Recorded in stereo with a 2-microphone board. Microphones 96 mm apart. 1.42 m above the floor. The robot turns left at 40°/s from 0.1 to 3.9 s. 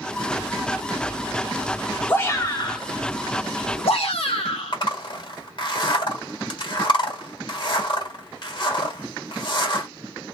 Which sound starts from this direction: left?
A zipper, at 4.7 s.